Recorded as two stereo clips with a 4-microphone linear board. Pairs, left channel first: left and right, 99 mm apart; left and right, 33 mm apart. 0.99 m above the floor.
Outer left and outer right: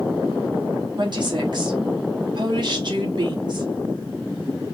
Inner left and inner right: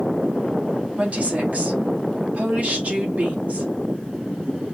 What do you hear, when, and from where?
1.0 s a woman speaking: 50° right (ahead or behind), 2 m